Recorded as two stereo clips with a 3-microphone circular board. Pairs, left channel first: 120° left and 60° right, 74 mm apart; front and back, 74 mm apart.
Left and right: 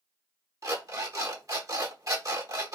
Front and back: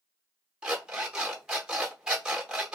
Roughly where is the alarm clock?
Right.